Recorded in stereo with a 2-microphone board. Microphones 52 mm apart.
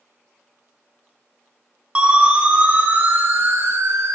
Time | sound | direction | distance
1.9 | a siren | 25° right (ahead or behind) | 2.5 m